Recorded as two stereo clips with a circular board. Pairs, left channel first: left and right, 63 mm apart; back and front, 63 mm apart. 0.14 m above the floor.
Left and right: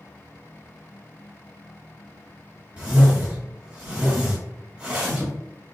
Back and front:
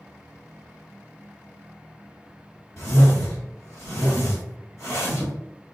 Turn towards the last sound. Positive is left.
turn(degrees=-150)